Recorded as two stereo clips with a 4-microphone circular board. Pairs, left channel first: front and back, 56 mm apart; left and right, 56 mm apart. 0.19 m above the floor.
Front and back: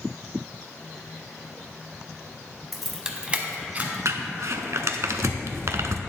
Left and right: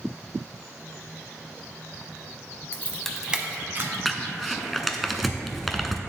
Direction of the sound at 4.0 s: 175° left.